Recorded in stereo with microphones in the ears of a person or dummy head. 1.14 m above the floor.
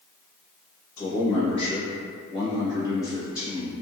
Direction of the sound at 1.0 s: 20° left (ahead or behind).